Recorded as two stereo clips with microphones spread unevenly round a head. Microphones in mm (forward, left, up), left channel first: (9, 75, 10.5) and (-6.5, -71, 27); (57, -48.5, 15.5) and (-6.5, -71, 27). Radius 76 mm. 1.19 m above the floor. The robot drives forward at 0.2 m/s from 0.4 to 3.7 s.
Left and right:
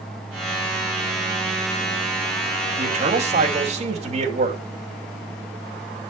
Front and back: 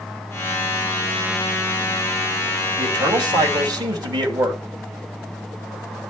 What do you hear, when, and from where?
2.8 s a man speaking: 145° right, 2.5 m